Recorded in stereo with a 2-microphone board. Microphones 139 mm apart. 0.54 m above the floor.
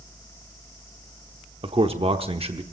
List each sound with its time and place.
1.6 s a man speaking: 40° right (ahead or behind), 0.9 m